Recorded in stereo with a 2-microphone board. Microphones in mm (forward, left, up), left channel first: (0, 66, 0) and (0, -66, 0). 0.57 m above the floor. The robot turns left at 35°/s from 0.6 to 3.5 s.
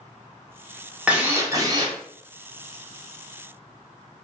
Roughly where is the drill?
Ahead.